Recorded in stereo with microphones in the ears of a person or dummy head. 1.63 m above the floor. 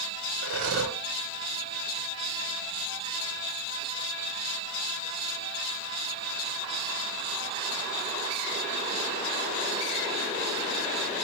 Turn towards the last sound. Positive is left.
turn(degrees=-60)  # may be behind; listen again after turning